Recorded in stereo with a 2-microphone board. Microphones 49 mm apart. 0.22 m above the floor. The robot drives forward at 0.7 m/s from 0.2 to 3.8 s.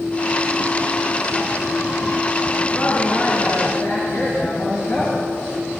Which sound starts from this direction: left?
A woman speaking, at 2.7 s.